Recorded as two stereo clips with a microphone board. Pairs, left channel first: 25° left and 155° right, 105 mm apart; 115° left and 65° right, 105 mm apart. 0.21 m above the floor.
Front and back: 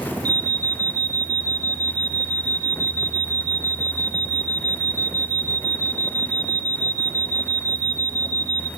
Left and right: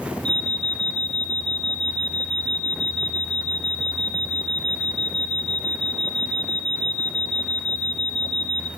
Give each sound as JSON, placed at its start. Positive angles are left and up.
{"t": 0.2, "sound": "an alarm", "azimuth_deg": -175, "distance_m": 1.5}